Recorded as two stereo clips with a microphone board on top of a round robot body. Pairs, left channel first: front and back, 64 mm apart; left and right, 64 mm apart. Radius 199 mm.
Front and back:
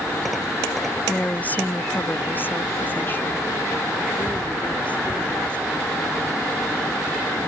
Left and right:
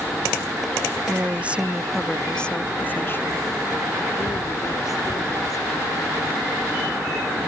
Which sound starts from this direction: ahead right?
A woman speaking, at 1.1 s.